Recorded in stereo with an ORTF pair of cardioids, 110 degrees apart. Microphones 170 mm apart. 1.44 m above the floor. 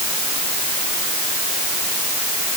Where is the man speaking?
No man speaking in this recording.